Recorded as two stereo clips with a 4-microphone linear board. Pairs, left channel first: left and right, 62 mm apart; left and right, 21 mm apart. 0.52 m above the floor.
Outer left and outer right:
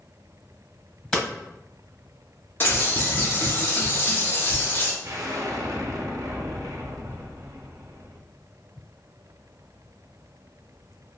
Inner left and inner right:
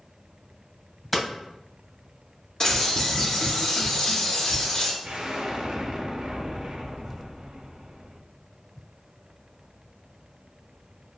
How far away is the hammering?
About 1.2 m.